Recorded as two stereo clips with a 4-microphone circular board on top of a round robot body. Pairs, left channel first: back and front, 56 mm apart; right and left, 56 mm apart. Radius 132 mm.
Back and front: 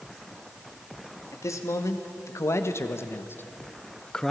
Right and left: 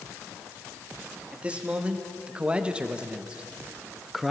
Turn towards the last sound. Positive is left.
turn(degrees=165)